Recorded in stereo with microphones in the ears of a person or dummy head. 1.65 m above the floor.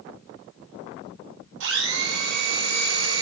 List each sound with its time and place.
1.6 s a blender: 85° right, 9 m